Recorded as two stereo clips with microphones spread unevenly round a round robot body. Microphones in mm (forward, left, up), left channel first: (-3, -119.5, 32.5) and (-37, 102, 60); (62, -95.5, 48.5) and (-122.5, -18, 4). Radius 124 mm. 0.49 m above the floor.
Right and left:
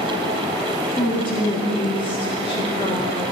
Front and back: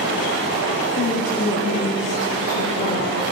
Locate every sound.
1.0 s a woman speaking: 60° right, 1.4 m